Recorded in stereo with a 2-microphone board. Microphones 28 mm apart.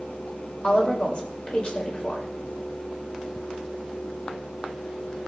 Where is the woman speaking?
40° left (ahead or behind), 4 m.